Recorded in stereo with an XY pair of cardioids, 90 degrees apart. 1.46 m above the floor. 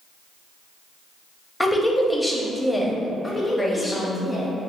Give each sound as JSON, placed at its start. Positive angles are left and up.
{"t": 1.6, "sound": "a woman speaking", "azimuth_deg": 10, "distance_m": 0.6}
{"t": 3.2, "sound": "a woman speaking", "azimuth_deg": 20, "distance_m": 1.0}